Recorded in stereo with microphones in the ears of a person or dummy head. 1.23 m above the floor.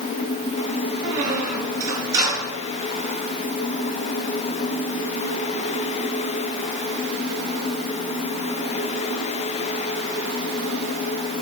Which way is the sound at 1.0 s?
20° right (ahead or behind).